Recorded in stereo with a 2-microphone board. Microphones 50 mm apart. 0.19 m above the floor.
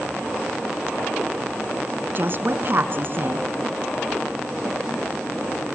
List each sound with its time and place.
2.1 s a woman speaking: 50° right (ahead or behind), 1.8 m